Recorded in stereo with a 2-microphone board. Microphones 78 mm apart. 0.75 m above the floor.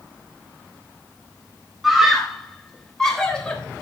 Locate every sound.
1.8 s a scream: centre (ahead or behind), 3.5 m; by 3.6 s 15° left (ahead or behind), 3 m